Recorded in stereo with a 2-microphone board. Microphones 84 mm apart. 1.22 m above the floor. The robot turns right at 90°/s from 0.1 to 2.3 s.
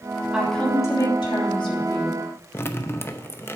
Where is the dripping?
30° left (ahead or behind), 0.7 m.